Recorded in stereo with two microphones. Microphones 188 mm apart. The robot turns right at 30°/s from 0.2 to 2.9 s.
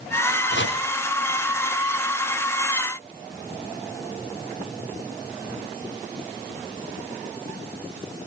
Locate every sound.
0.5 s chopping: 70° left (ahead or behind), 4.5 m; by 0.8 s 75° left (ahead or behind), 4.5 m